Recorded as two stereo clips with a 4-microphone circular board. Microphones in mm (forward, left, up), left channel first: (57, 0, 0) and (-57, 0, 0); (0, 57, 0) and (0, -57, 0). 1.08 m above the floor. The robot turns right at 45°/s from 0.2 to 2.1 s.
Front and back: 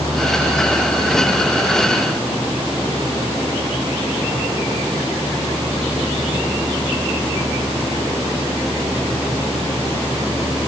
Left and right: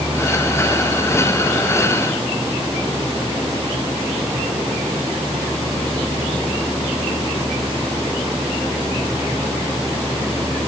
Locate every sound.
Only background noise.